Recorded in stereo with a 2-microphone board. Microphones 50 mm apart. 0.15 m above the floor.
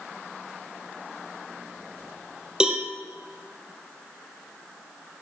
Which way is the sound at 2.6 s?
15° right (ahead or behind).